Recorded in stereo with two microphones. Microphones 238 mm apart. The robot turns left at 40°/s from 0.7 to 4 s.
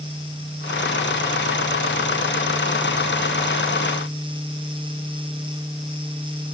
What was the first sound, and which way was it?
Only background noise.